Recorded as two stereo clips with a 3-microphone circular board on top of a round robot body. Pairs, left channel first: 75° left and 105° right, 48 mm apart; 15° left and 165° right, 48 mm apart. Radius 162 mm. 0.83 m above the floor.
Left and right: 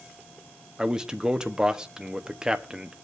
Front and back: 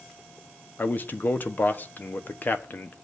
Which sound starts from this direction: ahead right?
A man speaking, at 0.8 s.